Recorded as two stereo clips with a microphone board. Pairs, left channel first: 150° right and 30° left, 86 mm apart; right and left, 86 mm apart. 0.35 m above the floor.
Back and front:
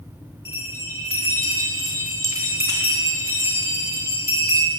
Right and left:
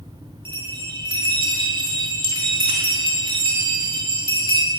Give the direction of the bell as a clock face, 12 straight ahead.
9 o'clock.